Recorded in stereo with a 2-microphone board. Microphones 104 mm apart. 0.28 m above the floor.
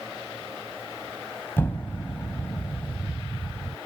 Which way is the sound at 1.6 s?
20° left (ahead or behind).